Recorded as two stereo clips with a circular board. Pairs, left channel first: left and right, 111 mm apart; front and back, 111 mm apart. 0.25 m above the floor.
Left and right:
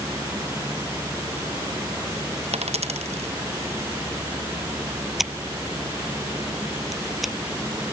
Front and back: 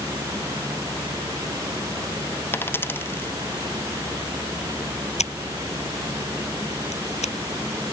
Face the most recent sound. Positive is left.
turn(degrees=0)